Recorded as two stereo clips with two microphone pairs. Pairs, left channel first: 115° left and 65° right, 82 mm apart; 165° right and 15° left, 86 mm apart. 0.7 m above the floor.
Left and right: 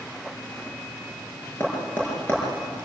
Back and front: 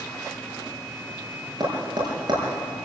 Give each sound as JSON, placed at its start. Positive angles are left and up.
{"t": 1.6, "sound": "tapping", "azimuth_deg": 50, "distance_m": 6.0}